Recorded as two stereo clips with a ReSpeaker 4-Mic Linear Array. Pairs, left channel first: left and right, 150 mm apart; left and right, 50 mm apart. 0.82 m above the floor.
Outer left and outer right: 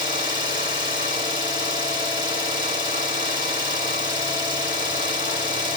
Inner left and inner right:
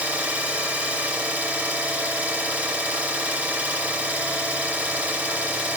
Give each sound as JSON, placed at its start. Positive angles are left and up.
{"t": 0.0, "sound": "an engine running", "side_deg": -30, "distance_m": 1.2}